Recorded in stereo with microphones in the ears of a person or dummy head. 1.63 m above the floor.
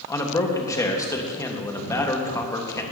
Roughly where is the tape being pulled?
I don't hear tape being pulled.